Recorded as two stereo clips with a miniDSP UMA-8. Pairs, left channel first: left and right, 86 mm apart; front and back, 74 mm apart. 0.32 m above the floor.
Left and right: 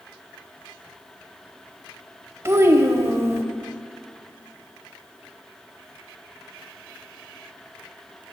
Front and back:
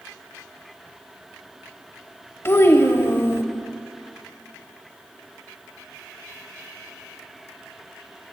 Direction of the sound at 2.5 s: 40° right.